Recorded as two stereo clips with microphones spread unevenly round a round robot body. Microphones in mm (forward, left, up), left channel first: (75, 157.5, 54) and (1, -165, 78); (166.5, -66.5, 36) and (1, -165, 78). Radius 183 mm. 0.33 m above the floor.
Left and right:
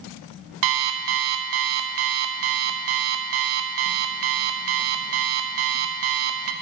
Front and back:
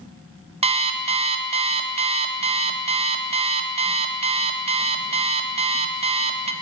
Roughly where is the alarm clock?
Right.